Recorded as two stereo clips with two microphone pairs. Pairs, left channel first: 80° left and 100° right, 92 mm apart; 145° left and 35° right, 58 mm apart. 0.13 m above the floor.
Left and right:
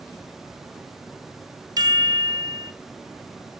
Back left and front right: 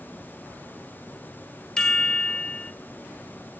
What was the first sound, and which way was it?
A chime, 140° right.